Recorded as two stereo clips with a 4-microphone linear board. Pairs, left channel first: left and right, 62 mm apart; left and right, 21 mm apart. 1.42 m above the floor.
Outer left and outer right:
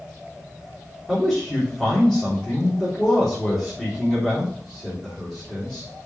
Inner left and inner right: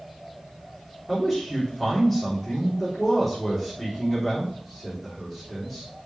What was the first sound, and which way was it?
A man speaking, 10° left (ahead or behind).